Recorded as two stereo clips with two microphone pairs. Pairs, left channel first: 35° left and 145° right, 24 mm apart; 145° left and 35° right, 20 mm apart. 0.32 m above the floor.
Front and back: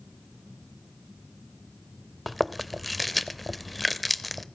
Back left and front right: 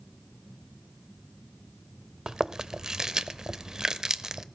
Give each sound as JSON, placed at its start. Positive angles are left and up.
{"t": 2.3, "sound": "chewing", "azimuth_deg": -50, "distance_m": 0.7}